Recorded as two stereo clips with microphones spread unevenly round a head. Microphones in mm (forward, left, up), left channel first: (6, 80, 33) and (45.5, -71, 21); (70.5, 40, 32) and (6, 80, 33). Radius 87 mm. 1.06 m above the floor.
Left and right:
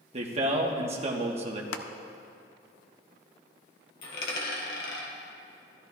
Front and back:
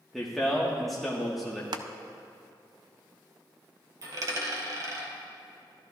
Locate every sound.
0.1 s a man speaking: 120° right, 1.2 m
1.7 s crushing: 130° left, 0.5 m
4.0 s a dropped coin: 120° left, 2 m